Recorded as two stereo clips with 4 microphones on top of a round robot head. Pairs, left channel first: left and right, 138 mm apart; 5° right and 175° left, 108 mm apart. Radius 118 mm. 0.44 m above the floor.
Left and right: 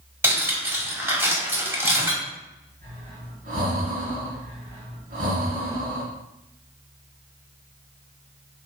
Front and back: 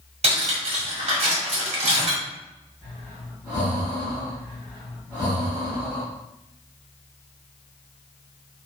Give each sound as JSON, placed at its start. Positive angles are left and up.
{"t": 0.2, "sound": "cutlery clinking", "azimuth_deg": -160, "distance_m": 1.5}
{"t": 2.8, "sound": "breathing", "azimuth_deg": -100, "distance_m": 1.7}